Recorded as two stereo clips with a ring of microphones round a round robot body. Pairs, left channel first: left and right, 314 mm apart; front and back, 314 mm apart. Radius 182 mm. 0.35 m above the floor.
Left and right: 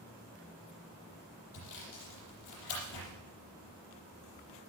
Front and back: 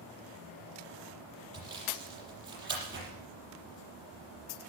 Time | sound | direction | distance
1.5 | sawing | 125° left | 6.5 m